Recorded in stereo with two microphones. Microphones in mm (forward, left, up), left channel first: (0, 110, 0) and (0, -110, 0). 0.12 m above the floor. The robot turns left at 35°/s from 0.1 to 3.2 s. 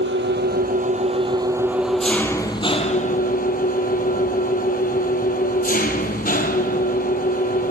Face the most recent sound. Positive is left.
turn(degrees=135)